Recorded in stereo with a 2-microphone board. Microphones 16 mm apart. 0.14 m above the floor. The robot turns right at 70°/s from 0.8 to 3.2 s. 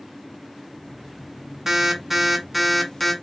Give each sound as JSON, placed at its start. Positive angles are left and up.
{"t": 1.7, "sound": "an alarm", "side_deg": -20, "distance_m": 0.7}